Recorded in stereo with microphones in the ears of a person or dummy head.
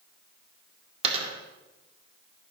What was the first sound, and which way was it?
A dropped coin, 35° right (ahead or behind).